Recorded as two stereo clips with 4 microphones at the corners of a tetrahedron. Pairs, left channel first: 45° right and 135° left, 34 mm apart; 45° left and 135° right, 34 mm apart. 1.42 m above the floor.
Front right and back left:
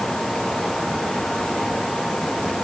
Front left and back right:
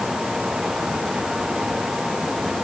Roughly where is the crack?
I don't hear a crack.